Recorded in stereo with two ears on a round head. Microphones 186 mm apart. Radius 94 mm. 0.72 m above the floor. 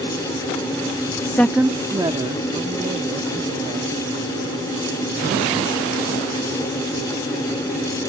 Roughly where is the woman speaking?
Centre.